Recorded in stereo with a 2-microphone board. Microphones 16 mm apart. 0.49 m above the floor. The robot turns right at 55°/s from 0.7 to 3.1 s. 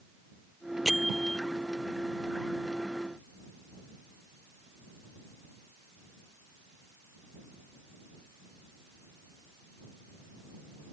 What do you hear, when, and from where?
0.8 s a bell: 15° right (ahead or behind); by 1.4 s 15° left (ahead or behind)